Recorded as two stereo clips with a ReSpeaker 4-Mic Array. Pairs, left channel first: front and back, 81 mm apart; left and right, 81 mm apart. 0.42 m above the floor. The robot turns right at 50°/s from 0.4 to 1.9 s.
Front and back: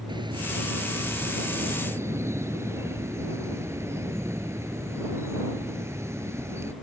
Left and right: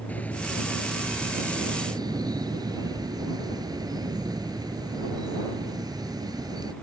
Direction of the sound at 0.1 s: 160° left.